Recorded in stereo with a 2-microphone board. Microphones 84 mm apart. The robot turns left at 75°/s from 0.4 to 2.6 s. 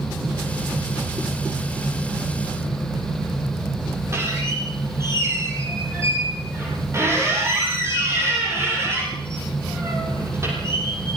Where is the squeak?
30° right (ahead or behind), 9.5 m.